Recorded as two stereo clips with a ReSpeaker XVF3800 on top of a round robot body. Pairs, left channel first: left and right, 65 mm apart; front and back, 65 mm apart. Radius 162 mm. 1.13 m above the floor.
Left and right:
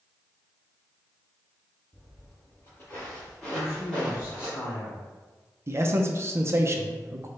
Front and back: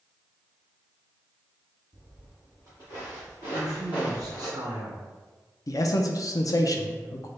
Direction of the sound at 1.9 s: 75° left.